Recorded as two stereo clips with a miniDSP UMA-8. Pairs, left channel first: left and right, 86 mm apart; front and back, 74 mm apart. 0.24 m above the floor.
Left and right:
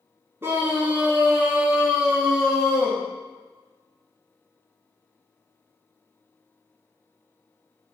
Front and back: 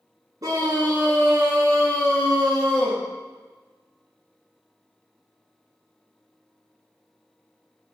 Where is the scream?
150° right, 2.5 m; by 3.0 s straight behind, 4 m.